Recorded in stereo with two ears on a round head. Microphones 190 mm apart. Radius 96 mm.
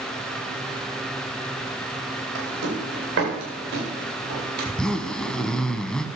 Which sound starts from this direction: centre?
A zipper, at 4.6 s.